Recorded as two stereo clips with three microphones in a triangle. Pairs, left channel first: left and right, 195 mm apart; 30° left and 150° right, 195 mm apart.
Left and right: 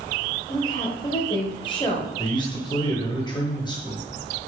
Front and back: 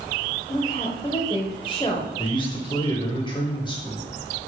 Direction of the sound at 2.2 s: 60° left.